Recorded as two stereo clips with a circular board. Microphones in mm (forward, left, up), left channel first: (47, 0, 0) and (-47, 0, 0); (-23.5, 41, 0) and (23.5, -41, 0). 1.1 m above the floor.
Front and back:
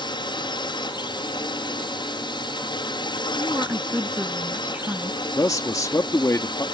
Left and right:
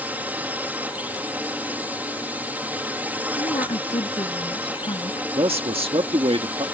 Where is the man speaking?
55° right.